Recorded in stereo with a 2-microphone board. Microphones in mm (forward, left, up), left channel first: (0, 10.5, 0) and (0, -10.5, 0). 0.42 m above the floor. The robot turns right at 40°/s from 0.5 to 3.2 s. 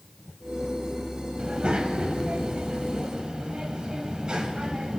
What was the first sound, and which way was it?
A child speaking, 120° right.